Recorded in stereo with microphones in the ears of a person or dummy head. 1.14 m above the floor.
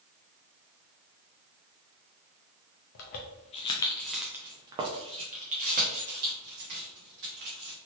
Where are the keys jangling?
55° left (ahead or behind), 0.7 m; by 7.8 s 60° right (ahead or behind), 2 m.